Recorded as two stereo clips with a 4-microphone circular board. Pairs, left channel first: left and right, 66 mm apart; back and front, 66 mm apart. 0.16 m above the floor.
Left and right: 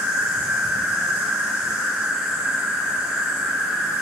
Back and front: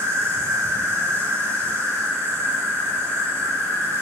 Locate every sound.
0.0 s an insect: 30° right, 1.8 m